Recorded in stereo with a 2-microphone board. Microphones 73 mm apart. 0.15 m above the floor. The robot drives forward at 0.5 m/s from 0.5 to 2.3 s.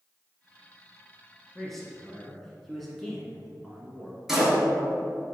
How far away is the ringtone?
No ringtone in this recording.